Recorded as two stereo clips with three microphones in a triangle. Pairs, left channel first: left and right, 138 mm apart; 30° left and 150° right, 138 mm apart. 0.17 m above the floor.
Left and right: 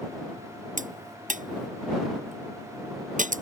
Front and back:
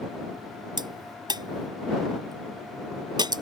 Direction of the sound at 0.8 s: 95° right.